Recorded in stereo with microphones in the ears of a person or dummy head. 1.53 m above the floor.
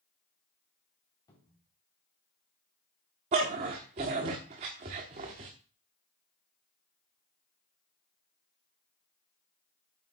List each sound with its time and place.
1.3 s a cupboard door: 25° left (ahead or behind), 3.5 m
3.3 s a dog barking: 25° right (ahead or behind), 1.2 m